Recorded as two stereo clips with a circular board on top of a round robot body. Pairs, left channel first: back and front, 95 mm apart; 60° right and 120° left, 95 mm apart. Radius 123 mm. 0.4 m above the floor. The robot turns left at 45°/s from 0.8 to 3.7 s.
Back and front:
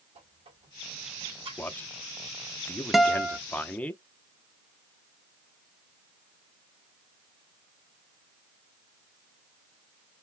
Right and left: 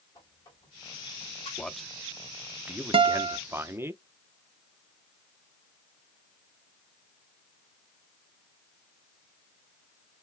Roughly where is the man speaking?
Behind right.